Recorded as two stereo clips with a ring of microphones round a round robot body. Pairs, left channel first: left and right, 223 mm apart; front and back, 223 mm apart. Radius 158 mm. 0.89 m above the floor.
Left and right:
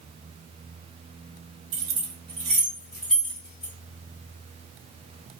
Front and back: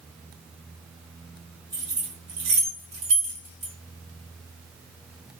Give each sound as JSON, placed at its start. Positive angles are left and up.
{"t": 1.7, "sound": "keys jangling", "azimuth_deg": -100, "distance_m": 0.6}